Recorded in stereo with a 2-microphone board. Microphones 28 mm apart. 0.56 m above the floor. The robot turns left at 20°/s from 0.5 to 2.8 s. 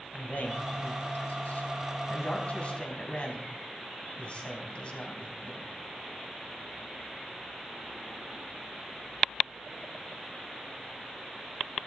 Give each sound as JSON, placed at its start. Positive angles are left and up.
{"t": 0.1, "sound": "a man speaking", "side_deg": 75, "distance_m": 4.0}